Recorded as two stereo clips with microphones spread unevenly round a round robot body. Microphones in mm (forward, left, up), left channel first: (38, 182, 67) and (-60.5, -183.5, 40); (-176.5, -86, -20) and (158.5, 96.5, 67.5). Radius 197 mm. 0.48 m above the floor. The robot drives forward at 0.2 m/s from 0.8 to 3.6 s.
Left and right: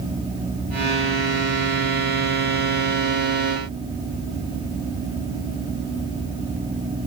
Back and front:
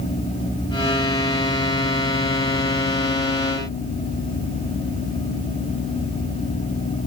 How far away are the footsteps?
No footsteps in this recording.